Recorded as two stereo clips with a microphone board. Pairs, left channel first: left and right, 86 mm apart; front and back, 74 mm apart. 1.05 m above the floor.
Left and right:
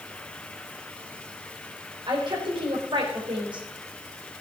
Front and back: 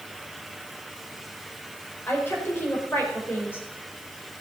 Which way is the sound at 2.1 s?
60° right.